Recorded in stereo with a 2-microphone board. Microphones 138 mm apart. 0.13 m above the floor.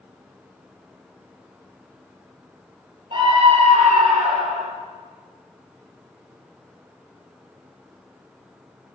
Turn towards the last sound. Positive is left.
turn(degrees=-60)  # may be behind; listen again after turning